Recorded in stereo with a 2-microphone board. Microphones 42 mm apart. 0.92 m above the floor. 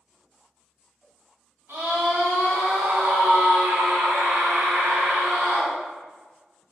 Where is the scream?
70° right (ahead or behind), 2.0 m.